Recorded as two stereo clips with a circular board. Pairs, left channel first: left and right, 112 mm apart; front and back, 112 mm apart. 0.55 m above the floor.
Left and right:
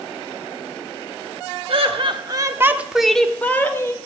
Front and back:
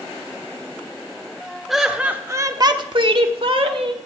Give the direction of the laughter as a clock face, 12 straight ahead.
3 o'clock.